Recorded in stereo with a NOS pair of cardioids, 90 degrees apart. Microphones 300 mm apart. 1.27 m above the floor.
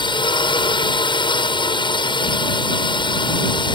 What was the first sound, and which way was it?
A drone, 15° left.